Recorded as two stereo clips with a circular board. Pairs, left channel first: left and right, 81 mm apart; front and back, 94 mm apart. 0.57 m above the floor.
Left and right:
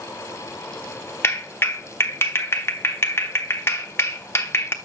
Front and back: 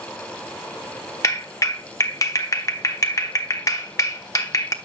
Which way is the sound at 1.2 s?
40° left.